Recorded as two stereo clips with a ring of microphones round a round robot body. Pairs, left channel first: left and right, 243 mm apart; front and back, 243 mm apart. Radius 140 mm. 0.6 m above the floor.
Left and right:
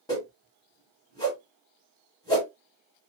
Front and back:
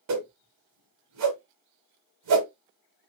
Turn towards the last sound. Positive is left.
turn(degrees=165)